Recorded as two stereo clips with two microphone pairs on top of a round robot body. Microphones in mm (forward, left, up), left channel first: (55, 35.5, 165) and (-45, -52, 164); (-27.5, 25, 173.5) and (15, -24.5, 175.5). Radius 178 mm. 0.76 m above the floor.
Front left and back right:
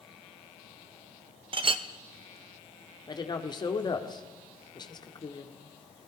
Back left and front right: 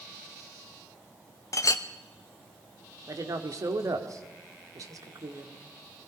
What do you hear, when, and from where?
1.5 s a clink: 170° left, 0.7 m
3.1 s a woman speaking: 15° right, 2 m